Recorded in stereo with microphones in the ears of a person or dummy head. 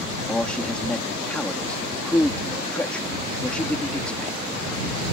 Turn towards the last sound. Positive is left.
turn(degrees=10)  # may be behind; listen again after turning